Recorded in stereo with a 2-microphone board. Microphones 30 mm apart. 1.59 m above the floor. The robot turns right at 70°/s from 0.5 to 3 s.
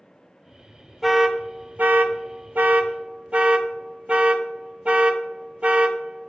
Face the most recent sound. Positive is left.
turn(degrees=-35)  # may be behind; listen again after turning